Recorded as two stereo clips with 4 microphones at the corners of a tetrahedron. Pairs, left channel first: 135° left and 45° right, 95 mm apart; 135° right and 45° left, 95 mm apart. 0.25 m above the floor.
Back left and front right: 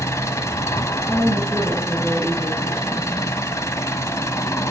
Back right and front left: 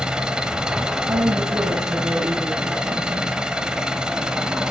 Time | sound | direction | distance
0.0 | an engine running | 120° left | 0.8 m
1.1 | a woman speaking | 55° left | 2.5 m